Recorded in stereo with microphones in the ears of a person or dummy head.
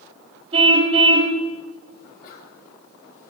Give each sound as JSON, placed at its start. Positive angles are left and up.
{"t": 0.5, "sound": "a car horn", "side_deg": -35, "distance_m": 3.5}
{"t": 2.0, "sound": "a sneeze", "side_deg": 55, "distance_m": 8.5}